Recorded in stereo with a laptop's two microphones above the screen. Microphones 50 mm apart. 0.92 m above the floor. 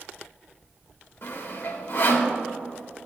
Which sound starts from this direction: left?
Sawing, at 1.2 s.